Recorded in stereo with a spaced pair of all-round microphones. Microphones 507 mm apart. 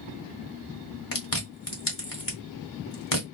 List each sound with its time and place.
1.1 s chewing: 40° left (ahead or behind), 1.6 m